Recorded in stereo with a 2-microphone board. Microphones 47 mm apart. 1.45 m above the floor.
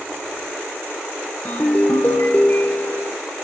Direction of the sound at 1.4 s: 35° left (ahead or behind).